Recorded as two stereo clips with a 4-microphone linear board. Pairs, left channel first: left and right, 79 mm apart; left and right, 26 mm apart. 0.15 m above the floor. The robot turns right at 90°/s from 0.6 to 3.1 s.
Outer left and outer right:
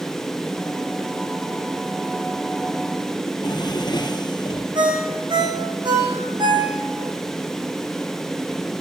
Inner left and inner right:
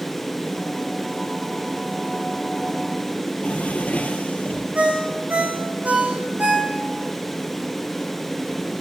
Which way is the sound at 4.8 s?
80° right.